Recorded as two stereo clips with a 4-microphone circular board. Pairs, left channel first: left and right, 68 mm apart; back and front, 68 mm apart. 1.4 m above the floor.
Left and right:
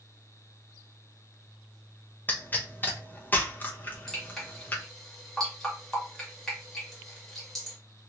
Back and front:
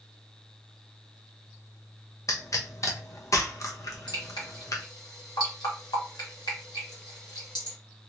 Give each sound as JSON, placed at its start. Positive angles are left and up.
{"t": 2.3, "sound": "a pop", "azimuth_deg": 150, "distance_m": 0.8}
{"t": 4.1, "sound": "dripping", "azimuth_deg": 175, "distance_m": 1.8}